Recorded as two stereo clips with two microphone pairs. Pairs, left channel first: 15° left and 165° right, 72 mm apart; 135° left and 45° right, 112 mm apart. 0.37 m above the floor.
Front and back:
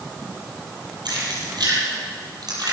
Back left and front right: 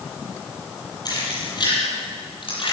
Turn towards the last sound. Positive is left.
turn(degrees=175)